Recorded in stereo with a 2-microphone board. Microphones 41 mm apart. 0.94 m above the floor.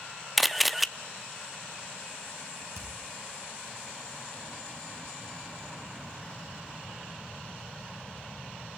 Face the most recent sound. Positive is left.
turn(degrees=-85)